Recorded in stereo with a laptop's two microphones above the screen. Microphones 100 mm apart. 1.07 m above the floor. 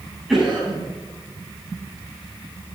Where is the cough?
5° right (ahead or behind), 7 m.